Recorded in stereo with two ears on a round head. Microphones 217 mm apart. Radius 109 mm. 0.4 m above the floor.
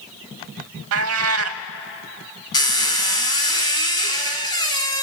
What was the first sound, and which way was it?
A cat meowing, 65° right (ahead or behind).